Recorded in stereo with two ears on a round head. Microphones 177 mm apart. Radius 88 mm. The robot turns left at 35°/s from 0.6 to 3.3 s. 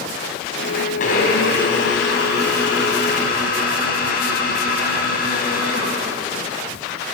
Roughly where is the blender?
Behind left.